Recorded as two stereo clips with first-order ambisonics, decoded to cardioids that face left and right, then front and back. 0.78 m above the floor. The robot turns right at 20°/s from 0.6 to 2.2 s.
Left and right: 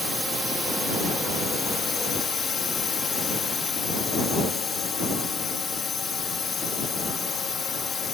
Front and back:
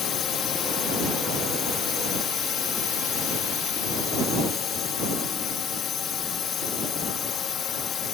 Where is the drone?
Straight ahead; by 8.1 s 35° left.